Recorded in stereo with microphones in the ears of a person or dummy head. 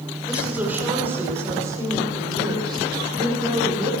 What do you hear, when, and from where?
0.3 s a woman speaking: 5° right (ahead or behind), 6 m; by 3.9 s 35° right (ahead or behind), 8.5 m